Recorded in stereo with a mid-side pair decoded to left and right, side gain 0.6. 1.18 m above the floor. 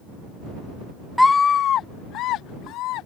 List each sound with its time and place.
1.2 s a scream: 5° left; by 3.1 s 70° left